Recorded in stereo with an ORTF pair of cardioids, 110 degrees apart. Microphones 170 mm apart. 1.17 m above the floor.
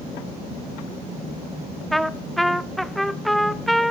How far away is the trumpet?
About 0.6 m.